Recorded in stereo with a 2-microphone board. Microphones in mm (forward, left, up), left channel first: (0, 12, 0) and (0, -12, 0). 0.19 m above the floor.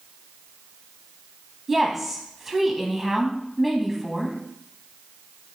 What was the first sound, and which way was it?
A woman speaking, 5° right (ahead or behind).